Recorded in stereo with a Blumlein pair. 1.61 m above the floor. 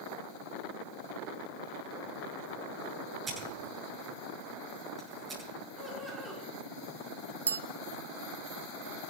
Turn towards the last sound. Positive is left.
turn(degrees=-70)